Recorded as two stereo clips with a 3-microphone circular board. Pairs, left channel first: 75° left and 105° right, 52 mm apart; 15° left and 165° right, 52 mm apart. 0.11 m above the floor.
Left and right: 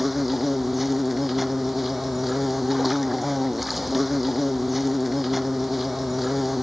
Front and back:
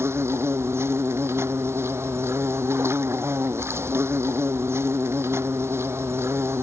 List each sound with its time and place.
0.0 s an insect: 165° left